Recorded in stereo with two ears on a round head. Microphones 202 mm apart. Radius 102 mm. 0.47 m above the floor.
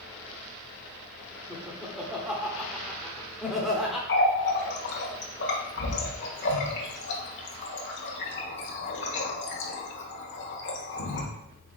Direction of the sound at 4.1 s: 55° left (ahead or behind).